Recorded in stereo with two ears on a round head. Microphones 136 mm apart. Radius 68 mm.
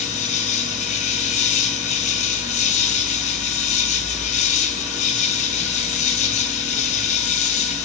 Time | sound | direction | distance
0.0 | an insect | 50° left (ahead or behind) | 2.5 m